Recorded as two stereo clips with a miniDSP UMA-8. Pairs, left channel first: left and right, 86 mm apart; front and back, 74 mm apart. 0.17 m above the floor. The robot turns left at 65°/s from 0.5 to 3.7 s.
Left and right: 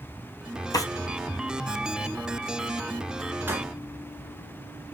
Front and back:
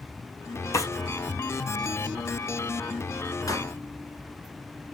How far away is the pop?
About 1.1 m.